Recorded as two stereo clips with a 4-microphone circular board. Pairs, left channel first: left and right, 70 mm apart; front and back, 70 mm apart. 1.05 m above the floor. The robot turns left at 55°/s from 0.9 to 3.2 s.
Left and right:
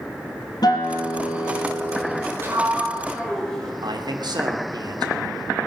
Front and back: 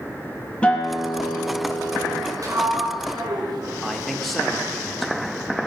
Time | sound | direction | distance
0.6 | a guitar | 75° left | 4.5 m
2.4 | a sliding door | 145° right | 5 m
3.8 | a man speaking | 90° right | 2.5 m